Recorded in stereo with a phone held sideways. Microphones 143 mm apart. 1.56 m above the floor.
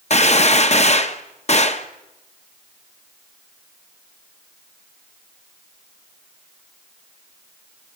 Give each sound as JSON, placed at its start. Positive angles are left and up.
{"t": 0.1, "sound": "a gunshot", "side_deg": 45, "distance_m": 1.0}